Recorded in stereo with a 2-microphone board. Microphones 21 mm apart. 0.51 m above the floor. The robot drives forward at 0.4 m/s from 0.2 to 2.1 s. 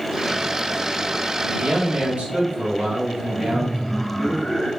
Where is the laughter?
30° left (ahead or behind), 1.6 m.